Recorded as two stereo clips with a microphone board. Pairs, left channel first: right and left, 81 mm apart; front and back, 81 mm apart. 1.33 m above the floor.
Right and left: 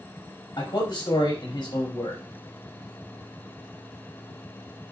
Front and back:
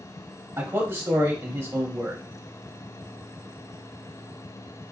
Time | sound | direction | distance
0.6 | a man speaking | 125° right | 1.5 m